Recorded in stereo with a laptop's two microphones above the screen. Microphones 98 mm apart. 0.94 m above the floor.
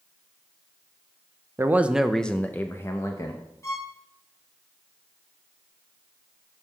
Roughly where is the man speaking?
Right.